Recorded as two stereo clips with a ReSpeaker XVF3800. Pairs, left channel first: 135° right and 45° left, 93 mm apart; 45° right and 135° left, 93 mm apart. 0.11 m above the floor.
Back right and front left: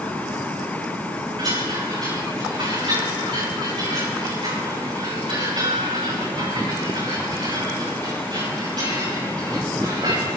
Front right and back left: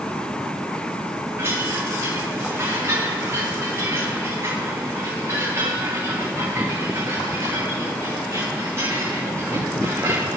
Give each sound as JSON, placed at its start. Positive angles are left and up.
{"t": 1.4, "sound": "a chime", "azimuth_deg": 75, "distance_m": 9.5}